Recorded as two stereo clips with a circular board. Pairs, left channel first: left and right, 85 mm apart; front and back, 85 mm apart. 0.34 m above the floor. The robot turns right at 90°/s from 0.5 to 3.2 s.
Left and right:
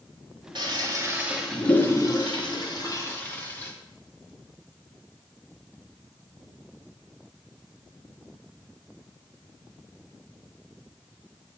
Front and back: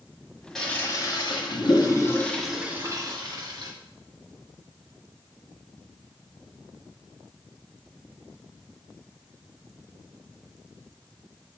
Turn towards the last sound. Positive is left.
turn(degrees=155)